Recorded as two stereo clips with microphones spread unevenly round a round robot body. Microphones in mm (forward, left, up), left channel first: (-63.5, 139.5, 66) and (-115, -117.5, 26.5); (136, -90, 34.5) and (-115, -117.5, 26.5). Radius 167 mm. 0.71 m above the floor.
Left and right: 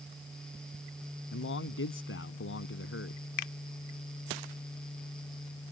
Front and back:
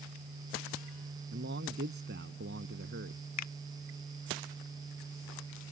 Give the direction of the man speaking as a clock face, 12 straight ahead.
8 o'clock.